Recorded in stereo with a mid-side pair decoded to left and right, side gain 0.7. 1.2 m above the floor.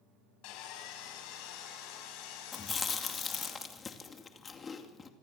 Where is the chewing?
25° left, 2.5 m.